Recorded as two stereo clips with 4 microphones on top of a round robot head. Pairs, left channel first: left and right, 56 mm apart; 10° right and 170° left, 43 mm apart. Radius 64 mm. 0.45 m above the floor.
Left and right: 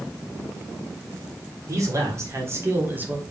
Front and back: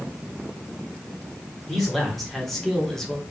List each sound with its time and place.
1.7 s a man speaking: 95° right, 1.8 m; by 3.2 s 70° right, 1.0 m